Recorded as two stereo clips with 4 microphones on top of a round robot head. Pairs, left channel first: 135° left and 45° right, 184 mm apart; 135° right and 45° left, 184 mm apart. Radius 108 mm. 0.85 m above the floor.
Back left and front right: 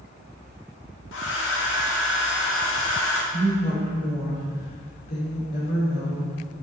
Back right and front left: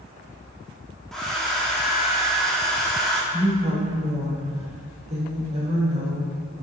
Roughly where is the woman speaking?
Left.